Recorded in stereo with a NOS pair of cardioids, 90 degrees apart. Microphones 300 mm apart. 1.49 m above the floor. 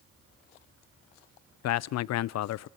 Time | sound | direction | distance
1.6 | a man speaking | 65° left | 0.5 m